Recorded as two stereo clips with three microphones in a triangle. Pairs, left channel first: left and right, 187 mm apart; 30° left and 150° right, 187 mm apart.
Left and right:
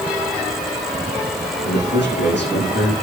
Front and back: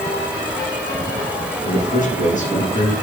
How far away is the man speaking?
About 8 m.